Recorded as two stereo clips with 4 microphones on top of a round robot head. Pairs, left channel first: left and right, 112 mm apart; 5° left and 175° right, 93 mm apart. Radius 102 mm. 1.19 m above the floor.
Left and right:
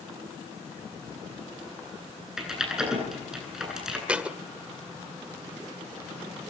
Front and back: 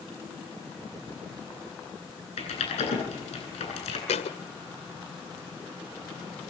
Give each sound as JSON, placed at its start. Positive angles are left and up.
{"t": 2.4, "sound": "typing on a keyboard", "azimuth_deg": -5, "distance_m": 10.0}
{"t": 4.1, "sound": "a thud", "azimuth_deg": -10, "distance_m": 1.9}